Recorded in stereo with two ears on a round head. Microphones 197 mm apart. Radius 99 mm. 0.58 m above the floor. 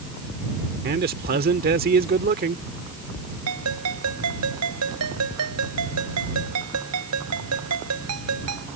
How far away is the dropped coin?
No dropped coin in this recording.